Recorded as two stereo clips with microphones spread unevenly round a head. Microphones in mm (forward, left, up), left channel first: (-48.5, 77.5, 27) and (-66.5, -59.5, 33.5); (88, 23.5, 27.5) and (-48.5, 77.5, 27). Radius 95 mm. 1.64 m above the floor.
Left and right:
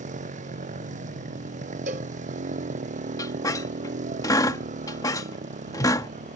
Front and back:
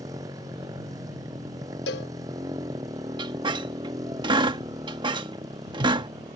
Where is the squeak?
130° left.